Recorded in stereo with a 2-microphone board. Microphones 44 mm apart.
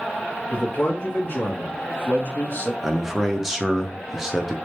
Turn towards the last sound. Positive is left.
turn(degrees=-10)  # may be behind; listen again after turning